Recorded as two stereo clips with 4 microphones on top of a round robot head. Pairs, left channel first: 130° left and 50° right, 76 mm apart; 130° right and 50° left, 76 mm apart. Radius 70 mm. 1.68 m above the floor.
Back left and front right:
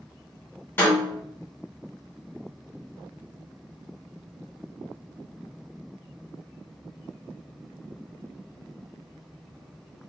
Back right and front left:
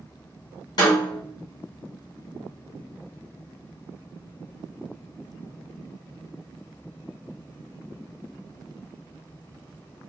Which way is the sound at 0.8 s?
165° right.